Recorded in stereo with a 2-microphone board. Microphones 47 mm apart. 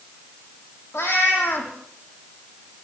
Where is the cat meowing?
65° left (ahead or behind), 8 m.